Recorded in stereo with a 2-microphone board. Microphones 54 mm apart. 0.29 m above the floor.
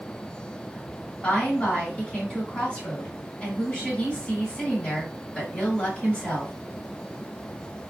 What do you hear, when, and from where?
1.2 s a woman speaking: 20° left (ahead or behind), 1.8 m